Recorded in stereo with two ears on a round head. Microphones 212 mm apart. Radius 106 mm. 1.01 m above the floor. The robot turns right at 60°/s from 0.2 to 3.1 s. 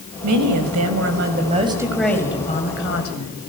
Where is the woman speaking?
105° right, 5 m; by 3.4 s 65° left, 5 m.